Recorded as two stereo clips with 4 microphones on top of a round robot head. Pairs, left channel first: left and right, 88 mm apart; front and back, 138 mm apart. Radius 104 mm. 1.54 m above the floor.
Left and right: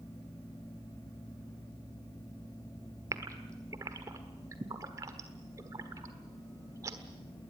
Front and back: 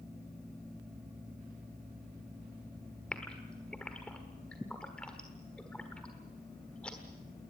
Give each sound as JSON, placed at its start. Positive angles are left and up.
{"t": 3.1, "sound": "a gasp", "azimuth_deg": -80, "distance_m": 1.3}